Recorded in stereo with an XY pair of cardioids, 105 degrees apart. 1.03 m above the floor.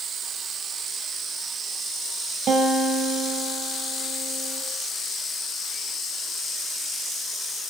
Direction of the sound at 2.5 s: 65° right.